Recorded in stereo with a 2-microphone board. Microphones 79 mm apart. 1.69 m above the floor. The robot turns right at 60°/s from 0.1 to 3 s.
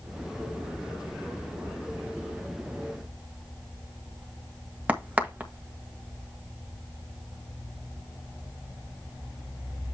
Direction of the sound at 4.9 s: 20° right (ahead or behind).